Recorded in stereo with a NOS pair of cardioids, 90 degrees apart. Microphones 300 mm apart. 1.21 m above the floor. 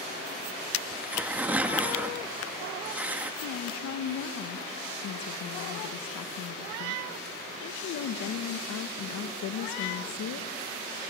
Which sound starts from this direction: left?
A woman speaking, at 3.4 s.